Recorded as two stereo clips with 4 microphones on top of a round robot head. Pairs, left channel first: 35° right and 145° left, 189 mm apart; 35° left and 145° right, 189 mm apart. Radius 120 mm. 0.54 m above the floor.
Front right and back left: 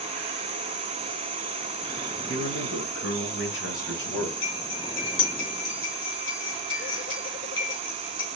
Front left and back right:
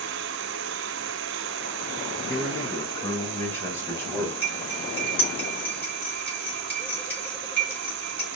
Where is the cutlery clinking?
45° right, 3 m.